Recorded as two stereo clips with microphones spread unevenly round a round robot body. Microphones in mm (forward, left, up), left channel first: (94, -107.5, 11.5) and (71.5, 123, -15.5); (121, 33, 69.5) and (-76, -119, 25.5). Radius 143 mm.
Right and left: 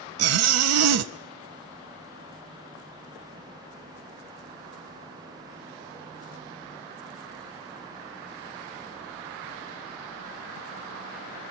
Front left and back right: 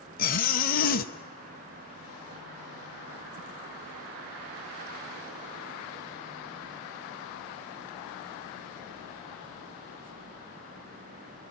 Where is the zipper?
100° left, 0.6 m.